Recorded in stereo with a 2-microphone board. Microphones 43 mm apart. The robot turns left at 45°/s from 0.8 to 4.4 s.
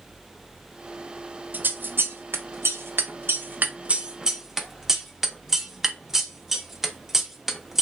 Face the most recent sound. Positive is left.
turn(degrees=-10)  # may be behind; listen again after turning